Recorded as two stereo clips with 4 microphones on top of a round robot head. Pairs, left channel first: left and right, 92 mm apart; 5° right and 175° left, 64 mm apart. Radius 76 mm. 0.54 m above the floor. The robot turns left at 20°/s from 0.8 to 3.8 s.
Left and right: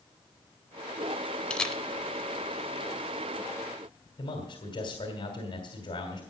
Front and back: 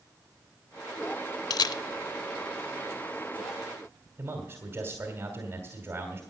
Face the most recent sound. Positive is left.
turn(degrees=115)